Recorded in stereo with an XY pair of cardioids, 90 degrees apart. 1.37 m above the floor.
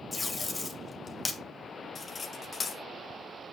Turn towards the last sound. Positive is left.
turn(degrees=45)